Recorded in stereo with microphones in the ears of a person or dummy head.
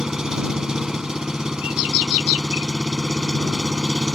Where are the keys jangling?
I don't hear keys jangling.